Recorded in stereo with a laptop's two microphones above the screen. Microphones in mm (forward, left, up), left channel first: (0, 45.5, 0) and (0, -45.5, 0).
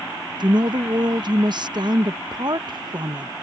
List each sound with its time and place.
0.4 s a woman speaking: 55° right (ahead or behind)